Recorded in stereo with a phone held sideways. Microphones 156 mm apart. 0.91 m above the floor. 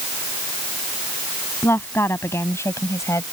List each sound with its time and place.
1.6 s a woman speaking: 15° left (ahead or behind); by 3.2 s 20° left (ahead or behind)